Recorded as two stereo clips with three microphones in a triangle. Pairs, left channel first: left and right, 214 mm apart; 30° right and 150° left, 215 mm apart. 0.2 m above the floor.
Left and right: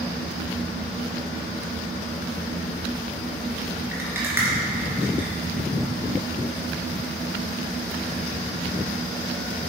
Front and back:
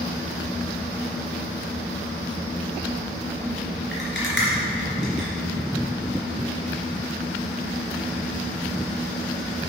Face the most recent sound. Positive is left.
turn(degrees=-10)